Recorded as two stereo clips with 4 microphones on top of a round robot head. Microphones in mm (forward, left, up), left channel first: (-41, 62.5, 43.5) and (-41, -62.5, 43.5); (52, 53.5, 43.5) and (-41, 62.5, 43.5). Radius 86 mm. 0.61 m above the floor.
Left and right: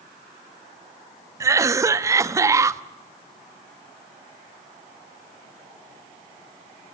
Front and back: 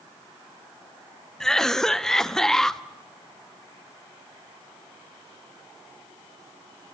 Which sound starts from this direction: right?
A cough, at 1.4 s.